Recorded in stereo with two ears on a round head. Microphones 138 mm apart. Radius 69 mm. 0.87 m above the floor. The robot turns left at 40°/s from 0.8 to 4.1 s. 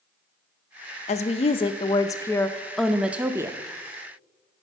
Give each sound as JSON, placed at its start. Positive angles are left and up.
{"t": 1.1, "sound": "a woman speaking", "azimuth_deg": 70, "distance_m": 0.5}